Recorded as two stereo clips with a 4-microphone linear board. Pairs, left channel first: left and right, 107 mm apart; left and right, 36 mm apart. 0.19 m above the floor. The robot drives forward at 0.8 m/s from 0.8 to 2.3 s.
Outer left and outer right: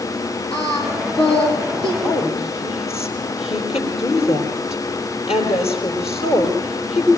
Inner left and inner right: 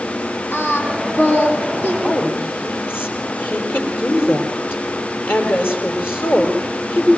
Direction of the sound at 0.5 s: 60° left (ahead or behind).